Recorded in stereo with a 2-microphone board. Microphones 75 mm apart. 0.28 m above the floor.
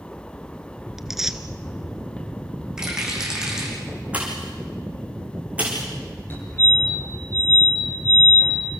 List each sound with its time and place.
1.0 s tearing paper: 5° right (ahead or behind), 1.3 m
2.8 s a rattle: 10° right (ahead or behind), 9.5 m
4.1 s a pop: 20° right (ahead or behind), 6 m
6.3 s a fire alarm: 30° left (ahead or behind), 9 m